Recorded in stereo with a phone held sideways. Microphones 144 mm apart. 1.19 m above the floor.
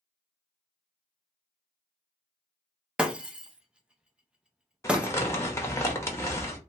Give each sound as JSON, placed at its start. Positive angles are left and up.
{"t": 3.0, "sound": "breaking glass", "side_deg": -5, "distance_m": 0.5}
{"t": 4.8, "sound": "crumpling", "side_deg": 20, "distance_m": 0.8}